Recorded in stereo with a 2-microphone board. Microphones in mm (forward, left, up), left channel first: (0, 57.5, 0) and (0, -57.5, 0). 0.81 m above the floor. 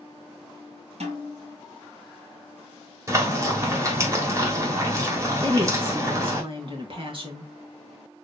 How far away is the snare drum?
About 3 m.